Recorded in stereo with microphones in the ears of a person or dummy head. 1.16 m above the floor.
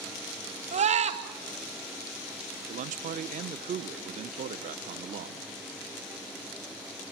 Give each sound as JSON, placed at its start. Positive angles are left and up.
{"t": 0.7, "sound": "a scream", "side_deg": -30, "distance_m": 1.9}
{"t": 2.7, "sound": "a man speaking", "side_deg": -40, "distance_m": 0.8}